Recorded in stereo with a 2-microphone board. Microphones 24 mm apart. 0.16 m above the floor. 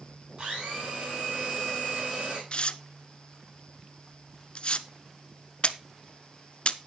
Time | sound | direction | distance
0.4 | a blender | 50° right (ahead or behind) | 7.5 m
2.5 | tearing paper | 50° left (ahead or behind) | 0.7 m